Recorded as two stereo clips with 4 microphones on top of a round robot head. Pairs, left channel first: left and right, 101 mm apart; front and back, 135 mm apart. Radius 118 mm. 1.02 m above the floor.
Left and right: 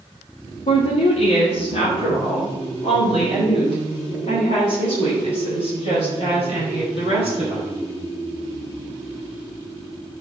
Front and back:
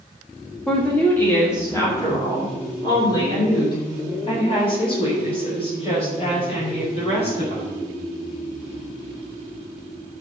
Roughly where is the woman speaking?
Left.